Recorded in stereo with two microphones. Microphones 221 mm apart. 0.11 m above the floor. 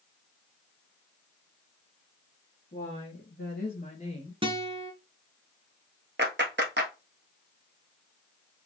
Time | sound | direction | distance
2.7 | a woman speaking | 55° left (ahead or behind) | 2.5 m
4.4 | a guitar | 25° right (ahead or behind) | 1.4 m
6.2 | a clap | 55° right (ahead or behind) | 1.4 m